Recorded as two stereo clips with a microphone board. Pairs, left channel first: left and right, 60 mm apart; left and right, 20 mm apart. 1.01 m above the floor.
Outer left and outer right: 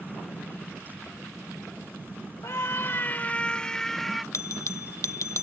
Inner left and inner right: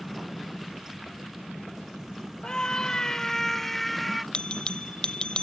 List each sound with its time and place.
2.4 s a scream: 65° left (ahead or behind); by 4.2 s 5° left (ahead or behind)
4.3 s a bell: 60° left (ahead or behind)